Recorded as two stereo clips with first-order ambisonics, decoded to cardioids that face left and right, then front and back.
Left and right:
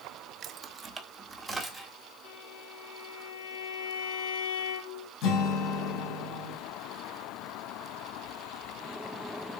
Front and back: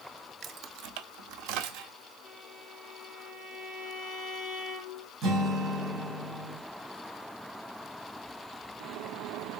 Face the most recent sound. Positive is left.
turn(degrees=125)